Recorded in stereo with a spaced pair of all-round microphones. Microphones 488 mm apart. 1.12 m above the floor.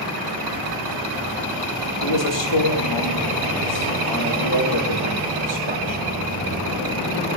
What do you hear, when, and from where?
2.0 s a man speaking: 60° left (ahead or behind), 1.8 m